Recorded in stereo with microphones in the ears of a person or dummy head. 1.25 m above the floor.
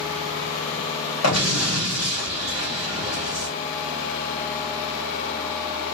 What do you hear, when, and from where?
1.2 s an explosion: 80° left, 2 m